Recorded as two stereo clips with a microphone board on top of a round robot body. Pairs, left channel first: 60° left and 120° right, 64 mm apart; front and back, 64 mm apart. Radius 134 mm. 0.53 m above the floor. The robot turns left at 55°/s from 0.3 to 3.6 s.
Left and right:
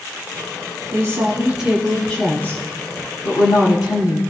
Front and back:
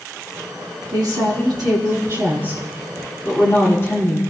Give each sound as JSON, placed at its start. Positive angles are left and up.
{"t": 0.9, "sound": "a woman speaking", "azimuth_deg": -155, "distance_m": 5.0}